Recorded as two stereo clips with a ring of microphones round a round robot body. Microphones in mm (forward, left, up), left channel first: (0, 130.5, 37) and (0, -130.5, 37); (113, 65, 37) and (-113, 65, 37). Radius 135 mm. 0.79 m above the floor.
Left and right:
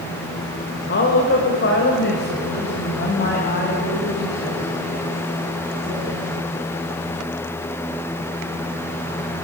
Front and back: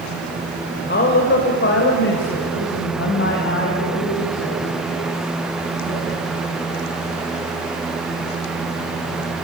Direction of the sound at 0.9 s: 40° left.